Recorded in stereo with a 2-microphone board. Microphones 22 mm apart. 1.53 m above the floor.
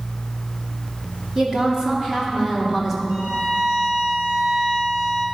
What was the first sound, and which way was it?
A woman speaking, 25° right (ahead or behind).